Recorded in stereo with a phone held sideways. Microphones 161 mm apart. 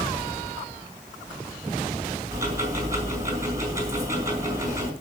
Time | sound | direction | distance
2.3 | ticking | 20° right (ahead or behind) | 4.5 m